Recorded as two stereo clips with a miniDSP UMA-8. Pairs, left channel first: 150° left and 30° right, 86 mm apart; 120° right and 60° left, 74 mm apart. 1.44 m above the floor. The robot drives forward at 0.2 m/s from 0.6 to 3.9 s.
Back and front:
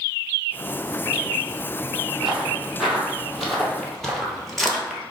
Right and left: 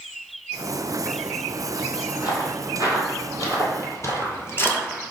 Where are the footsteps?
115° right, 2.5 m; by 5.0 s 125° right, 1.5 m.